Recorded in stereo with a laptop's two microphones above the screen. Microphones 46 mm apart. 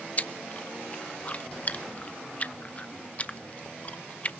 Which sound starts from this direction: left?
Chewing, at 0.2 s.